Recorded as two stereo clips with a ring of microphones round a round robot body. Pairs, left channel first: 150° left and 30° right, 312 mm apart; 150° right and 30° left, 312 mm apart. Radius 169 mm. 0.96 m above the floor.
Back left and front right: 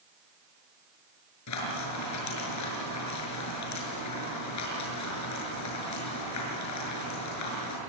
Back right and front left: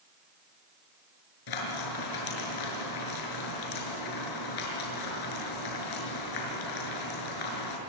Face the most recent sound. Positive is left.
turn(degrees=-170)